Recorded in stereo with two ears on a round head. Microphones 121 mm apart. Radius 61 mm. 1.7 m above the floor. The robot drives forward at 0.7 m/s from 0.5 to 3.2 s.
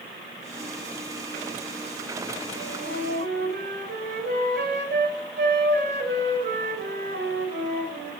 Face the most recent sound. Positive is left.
turn(degrees=-70)  # may be behind; listen again after turning